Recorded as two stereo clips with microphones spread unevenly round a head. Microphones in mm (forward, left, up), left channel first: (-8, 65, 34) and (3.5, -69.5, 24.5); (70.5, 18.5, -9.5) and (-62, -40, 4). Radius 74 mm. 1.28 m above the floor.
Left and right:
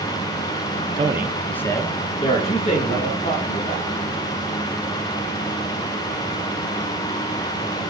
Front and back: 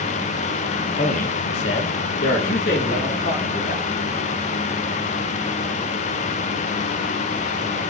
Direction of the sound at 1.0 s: 30° right.